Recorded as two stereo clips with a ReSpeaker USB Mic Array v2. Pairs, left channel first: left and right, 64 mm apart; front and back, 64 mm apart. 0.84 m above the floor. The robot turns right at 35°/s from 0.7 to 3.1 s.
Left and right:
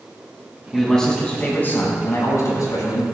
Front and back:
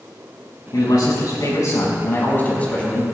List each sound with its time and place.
0.7 s a man speaking: straight ahead, 5.5 m; by 3.0 s 80° left, 5.5 m